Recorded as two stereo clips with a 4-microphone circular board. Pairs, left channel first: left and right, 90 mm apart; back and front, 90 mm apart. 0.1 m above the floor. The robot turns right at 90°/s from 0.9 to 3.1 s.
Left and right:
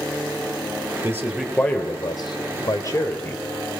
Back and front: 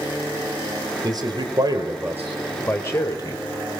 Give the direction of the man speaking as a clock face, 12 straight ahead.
1 o'clock.